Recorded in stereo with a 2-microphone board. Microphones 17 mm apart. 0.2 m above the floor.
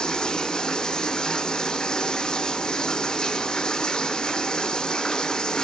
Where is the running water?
55° left (ahead or behind), 1.0 m.